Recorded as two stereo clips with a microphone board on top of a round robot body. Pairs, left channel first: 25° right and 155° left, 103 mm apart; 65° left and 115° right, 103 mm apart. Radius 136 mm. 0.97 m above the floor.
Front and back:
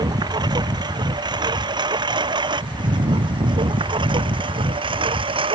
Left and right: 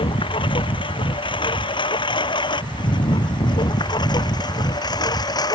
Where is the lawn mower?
110° left; by 5.6 s 120° left.